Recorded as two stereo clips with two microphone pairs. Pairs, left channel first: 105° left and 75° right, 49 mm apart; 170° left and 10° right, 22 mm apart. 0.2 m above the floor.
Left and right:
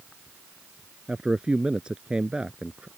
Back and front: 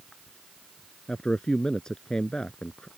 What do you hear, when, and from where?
1.1 s a man speaking: 140° right